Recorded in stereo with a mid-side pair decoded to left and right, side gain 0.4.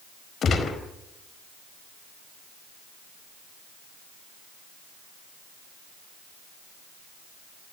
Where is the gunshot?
60° left, 4.5 m.